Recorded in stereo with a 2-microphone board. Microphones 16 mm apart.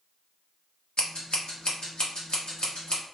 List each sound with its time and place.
1.0 s scissors: 55° left (ahead or behind), 1.0 m